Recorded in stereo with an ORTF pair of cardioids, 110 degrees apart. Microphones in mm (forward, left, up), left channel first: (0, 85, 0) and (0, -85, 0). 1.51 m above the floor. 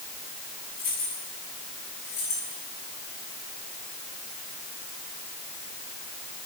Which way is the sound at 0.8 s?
65° left.